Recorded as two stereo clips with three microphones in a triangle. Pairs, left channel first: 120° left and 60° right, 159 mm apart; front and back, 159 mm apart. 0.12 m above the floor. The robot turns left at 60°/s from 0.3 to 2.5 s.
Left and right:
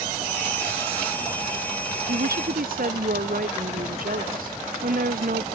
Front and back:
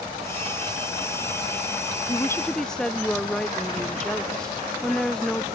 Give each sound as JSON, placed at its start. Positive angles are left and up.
{"t": 2.1, "sound": "a woman speaking", "azimuth_deg": -60}